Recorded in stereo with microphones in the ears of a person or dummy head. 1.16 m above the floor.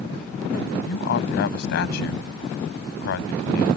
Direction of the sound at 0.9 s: 65° left (ahead or behind).